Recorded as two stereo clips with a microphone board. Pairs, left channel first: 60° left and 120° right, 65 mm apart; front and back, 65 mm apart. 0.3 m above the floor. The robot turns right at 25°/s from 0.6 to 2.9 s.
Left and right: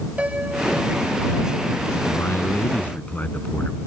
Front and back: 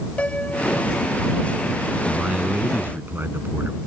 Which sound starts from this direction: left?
A man speaking, at 2.1 s.